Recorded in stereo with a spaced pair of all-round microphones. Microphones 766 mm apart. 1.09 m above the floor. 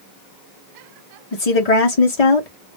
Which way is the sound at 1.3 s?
50° left (ahead or behind).